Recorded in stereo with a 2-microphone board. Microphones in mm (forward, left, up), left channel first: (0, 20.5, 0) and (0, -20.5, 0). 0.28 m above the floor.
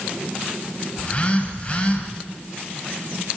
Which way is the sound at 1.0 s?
30° left (ahead or behind).